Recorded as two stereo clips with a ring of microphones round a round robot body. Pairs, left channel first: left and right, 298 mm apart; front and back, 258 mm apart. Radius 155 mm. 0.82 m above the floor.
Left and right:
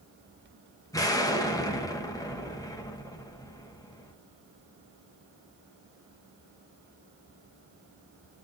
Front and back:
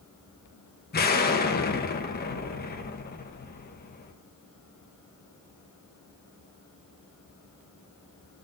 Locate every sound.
0.9 s an explosion: 20° left, 1.0 m